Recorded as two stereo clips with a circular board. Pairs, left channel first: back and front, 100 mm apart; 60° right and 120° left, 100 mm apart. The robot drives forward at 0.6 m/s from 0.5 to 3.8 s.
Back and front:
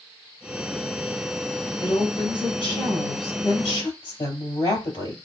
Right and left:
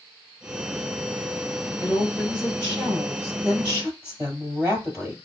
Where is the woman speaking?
165° right, 3 m; by 5.2 s 170° right, 4 m.